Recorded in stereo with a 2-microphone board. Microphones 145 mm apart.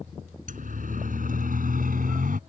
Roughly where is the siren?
Right.